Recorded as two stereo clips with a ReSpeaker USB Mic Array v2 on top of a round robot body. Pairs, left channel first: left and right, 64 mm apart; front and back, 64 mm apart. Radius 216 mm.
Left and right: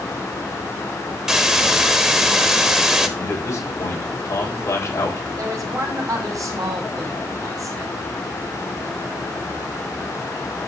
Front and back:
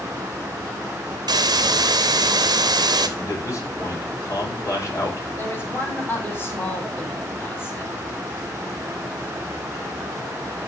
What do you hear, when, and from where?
1.3 s a hiss: 170° right, 1.3 m
3.2 s a man speaking: 45° left, 7 m
5.4 s a man speaking: 55° right, 5.5 m